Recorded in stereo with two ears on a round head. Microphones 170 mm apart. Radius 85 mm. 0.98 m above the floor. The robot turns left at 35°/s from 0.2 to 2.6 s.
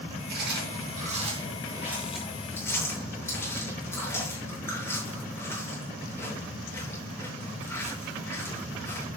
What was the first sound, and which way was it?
Chewing, 65° right (ahead or behind).